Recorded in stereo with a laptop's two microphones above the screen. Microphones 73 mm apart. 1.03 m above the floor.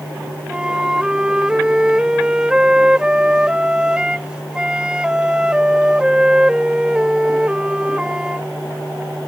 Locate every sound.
0.5 s a flute: 10° right (ahead or behind)